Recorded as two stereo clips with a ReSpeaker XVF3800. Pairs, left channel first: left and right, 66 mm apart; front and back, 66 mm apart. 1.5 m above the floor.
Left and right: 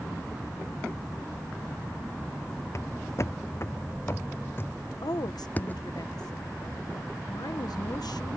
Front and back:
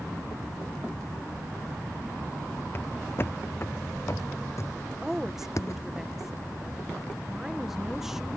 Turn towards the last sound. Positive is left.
turn(degrees=95)